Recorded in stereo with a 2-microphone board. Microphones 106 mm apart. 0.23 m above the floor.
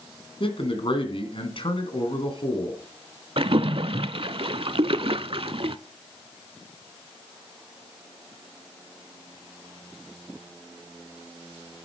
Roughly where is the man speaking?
Left.